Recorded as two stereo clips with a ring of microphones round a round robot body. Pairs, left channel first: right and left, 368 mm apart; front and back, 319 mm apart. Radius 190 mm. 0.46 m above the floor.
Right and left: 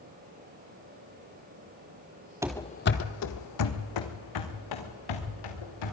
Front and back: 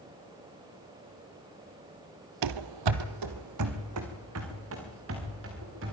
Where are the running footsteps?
170° left, 0.8 m; by 5.9 s 120° right, 5 m.